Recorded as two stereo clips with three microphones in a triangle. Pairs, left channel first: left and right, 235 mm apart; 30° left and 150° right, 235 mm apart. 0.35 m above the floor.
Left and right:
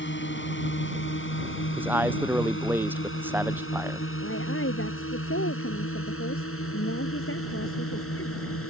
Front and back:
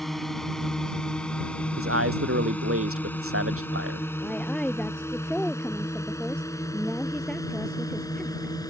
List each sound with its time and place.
0.0 s a drone: 120° left; by 8.7 s 105° left
1.8 s a man speaking: 170° right
4.2 s a woman speaking: 115° left